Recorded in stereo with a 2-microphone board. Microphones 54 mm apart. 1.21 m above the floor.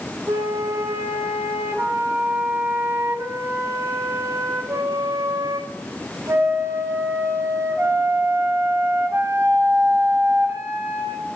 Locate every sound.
0.3 s a flute: 60° right (ahead or behind), 1.9 m